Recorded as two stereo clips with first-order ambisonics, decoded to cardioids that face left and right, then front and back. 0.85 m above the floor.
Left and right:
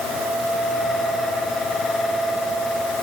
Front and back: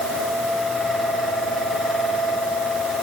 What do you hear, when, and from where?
Only background noise.